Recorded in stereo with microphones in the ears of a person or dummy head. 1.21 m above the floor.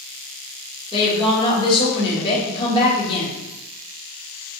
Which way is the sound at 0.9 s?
30° left (ahead or behind).